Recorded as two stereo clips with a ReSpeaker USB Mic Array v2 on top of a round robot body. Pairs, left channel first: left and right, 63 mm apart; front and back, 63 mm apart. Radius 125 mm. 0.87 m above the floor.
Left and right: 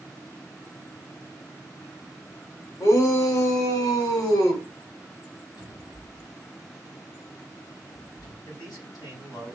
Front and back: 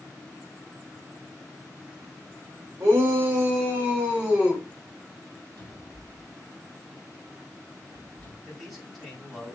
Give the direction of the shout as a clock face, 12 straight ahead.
8 o'clock.